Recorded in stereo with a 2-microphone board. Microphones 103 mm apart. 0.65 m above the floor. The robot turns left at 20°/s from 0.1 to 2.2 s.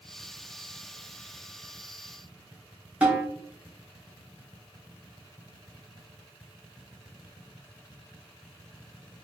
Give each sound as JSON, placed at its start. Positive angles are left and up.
{"t": 3.0, "sound": "a snare drum", "side_deg": -10, "distance_m": 1.4}